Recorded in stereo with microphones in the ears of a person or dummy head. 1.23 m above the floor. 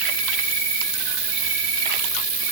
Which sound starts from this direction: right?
An insect, at 0.0 s.